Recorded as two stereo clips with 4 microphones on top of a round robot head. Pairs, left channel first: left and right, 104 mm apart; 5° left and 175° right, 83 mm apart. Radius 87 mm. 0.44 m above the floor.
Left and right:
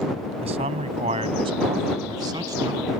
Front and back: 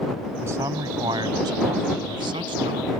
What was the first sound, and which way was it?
A man speaking, 110° right.